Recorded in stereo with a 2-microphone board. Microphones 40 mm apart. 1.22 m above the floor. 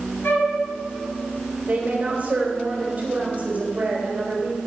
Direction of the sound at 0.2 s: 65° left (ahead or behind).